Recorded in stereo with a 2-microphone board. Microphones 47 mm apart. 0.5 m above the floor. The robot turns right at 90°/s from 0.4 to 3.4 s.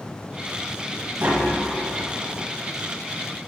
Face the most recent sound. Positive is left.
turn(degrees=145)